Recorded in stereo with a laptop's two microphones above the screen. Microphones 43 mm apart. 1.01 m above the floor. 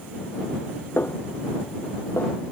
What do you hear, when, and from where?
1.0 s a snare drum: 70° left (ahead or behind)